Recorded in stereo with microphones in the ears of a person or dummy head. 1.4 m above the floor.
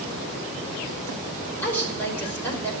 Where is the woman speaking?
10° left (ahead or behind), 5.5 m.